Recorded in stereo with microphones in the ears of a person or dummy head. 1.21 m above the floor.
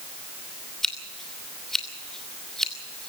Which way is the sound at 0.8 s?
5° left (ahead or behind).